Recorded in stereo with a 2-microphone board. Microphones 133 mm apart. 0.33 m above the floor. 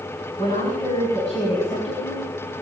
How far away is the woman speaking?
About 5 m.